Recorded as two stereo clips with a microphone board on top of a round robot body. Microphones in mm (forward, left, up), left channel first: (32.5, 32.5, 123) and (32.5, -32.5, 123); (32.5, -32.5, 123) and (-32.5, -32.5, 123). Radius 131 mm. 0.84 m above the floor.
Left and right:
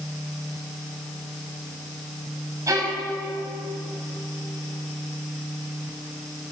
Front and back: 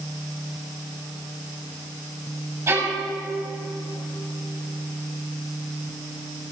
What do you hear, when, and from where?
2.7 s a violin: 140° right, 6.5 m